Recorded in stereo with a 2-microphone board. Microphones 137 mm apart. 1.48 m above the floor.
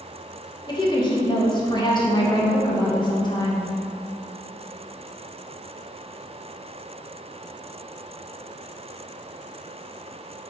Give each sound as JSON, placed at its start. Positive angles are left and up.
{"t": 0.7, "sound": "a woman speaking", "side_deg": 30, "distance_m": 1.4}